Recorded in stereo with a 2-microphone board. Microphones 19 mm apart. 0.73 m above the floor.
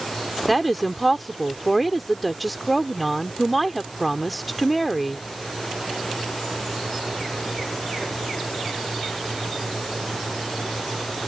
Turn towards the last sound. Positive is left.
turn(degrees=5)  # may be behind; listen again after turning